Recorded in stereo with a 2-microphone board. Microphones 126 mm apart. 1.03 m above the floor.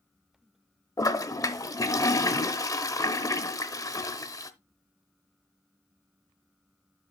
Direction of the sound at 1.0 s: 25° left (ahead or behind).